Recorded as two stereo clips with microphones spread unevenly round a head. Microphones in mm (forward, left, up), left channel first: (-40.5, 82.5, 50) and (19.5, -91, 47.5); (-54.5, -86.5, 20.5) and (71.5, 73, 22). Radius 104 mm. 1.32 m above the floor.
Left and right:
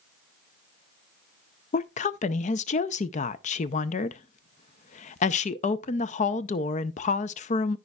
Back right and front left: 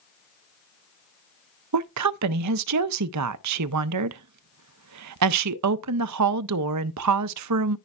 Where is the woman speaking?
55° left, 0.5 m.